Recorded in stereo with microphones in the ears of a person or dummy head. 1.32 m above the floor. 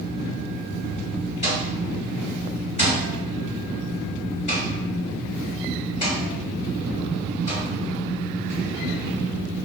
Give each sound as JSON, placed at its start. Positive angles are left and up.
{"t": 1.4, "sound": "an alarm clock", "side_deg": 35, "distance_m": 2.0}